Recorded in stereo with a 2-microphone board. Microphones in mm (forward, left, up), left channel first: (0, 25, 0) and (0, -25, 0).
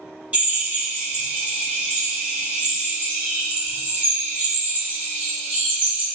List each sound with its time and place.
0.3 s a drill: 30° right (ahead or behind), 1.2 m